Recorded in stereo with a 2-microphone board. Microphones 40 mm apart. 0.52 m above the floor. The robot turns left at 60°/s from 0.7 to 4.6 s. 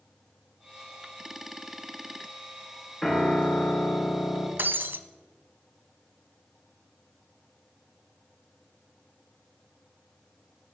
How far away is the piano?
About 2.5 m.